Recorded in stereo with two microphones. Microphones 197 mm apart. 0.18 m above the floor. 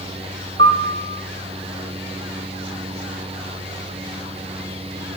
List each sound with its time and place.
0.6 s a piano: 65° right (ahead or behind), 1.4 m